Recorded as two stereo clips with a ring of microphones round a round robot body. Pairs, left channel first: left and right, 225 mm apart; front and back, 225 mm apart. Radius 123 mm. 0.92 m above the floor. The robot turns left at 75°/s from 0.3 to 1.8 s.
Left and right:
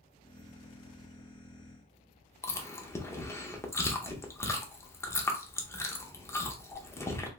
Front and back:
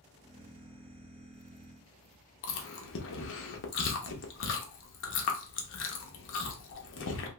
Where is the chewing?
15° left, 0.7 m.